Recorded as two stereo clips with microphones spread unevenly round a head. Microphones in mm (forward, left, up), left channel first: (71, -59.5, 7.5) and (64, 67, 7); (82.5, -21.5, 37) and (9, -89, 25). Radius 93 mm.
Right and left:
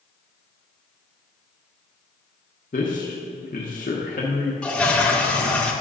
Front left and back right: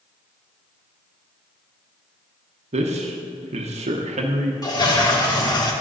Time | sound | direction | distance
2.7 | a man speaking | 140° right | 1.0 m
4.6 | a toilet flushing | 5° right | 1.7 m